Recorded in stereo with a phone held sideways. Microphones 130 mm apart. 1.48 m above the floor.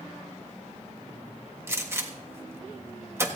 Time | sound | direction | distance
1.7 | a gunshot | 20° right (ahead or behind) | 1.4 m